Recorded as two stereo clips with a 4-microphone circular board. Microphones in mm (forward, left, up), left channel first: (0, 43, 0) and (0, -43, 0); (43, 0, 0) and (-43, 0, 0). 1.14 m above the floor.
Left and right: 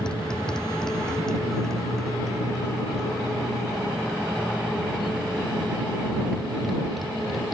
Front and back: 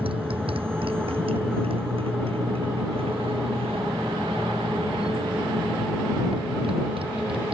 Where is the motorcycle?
170° left; by 7.5 s straight behind.